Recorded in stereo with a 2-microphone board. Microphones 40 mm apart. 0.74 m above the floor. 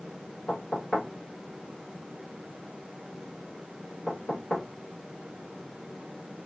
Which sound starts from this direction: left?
Knocking, at 0.5 s.